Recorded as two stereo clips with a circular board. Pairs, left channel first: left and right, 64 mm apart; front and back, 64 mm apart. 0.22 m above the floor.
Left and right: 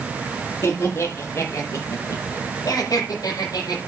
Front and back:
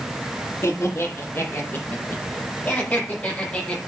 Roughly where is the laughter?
Ahead left.